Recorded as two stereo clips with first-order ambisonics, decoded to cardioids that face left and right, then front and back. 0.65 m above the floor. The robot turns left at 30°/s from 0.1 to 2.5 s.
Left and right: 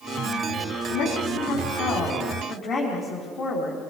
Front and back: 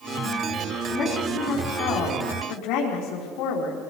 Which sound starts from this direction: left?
A woman speaking, at 0.9 s.